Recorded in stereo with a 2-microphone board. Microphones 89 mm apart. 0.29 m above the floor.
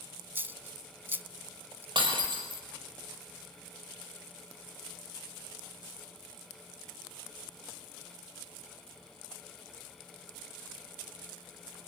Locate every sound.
0.3 s a dropped coin: 25° right (ahead or behind), 0.6 m
1.9 s breaking glass: 70° right (ahead or behind), 5.5 m